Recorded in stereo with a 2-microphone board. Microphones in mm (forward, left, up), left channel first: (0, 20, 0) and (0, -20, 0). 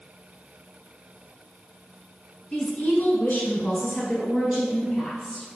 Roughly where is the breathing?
No breathing in this recording.